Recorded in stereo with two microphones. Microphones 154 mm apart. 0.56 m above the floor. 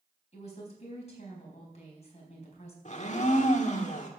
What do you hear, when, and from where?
0.3 s a woman speaking: 45° left (ahead or behind), 4 m
2.9 s a blender: 50° left (ahead or behind), 1.6 m